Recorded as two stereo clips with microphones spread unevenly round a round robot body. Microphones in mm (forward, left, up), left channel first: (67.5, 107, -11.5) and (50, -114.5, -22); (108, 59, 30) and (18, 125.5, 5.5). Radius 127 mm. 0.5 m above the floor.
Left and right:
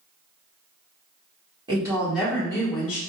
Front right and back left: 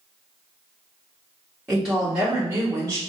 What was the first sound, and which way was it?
A woman speaking, 145° right.